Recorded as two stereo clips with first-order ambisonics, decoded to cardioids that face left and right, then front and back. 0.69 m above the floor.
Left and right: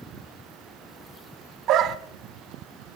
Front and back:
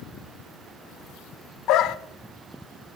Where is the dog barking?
40° right, 0.6 m.